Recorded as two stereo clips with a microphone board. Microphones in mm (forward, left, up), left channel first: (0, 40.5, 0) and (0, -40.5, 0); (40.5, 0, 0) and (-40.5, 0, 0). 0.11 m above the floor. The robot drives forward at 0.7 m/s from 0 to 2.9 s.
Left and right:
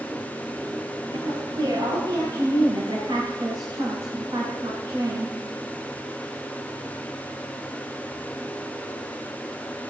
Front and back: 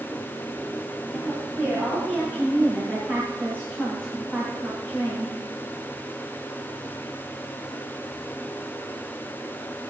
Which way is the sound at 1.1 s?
110° right.